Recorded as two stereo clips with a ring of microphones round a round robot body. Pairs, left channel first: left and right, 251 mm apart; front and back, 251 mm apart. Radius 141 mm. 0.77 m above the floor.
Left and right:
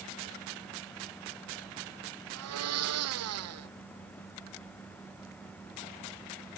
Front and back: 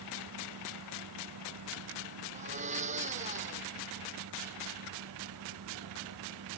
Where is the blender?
115° right.